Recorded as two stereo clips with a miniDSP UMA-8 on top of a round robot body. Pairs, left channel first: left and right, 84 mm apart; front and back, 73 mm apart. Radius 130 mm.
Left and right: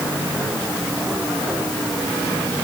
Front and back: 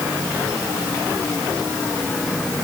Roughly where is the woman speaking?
I don't hear a woman speaking.